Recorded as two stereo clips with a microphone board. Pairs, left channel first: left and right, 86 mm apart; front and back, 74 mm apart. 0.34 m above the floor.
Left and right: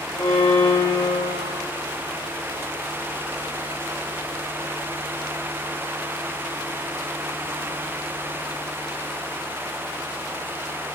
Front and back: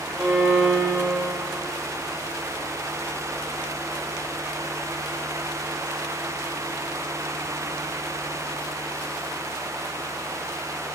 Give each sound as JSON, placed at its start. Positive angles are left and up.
{"t": 0.2, "sound": "a violin", "azimuth_deg": 130, "distance_m": 3.0}